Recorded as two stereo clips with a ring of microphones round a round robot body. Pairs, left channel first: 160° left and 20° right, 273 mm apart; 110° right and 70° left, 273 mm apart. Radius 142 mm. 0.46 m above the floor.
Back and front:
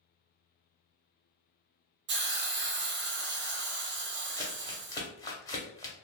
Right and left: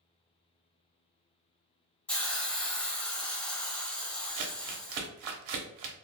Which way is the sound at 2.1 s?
30° right.